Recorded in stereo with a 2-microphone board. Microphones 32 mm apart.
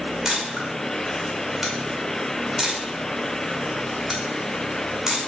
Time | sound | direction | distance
0.2 | a camera shutter | 10° right (ahead or behind) | 5.5 m